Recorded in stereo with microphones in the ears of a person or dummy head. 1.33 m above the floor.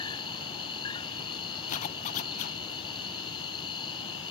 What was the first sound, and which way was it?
An insect, 30° left (ahead or behind).